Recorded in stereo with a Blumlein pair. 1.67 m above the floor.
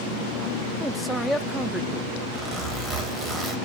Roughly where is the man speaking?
Ahead.